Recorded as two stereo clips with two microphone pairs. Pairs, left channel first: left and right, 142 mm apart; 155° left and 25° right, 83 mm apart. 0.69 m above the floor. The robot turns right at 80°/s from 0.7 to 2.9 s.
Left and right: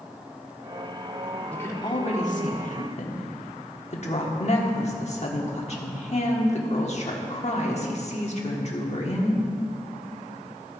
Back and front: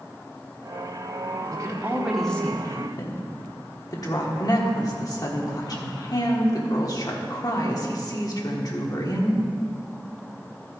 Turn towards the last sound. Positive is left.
turn(degrees=120)